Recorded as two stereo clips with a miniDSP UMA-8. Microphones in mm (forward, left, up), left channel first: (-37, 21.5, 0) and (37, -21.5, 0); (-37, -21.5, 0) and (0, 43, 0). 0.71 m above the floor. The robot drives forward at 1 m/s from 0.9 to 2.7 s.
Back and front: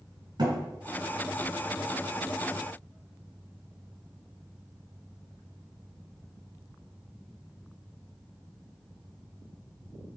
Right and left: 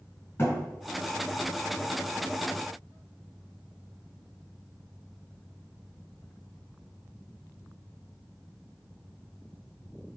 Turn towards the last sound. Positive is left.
turn(degrees=-90)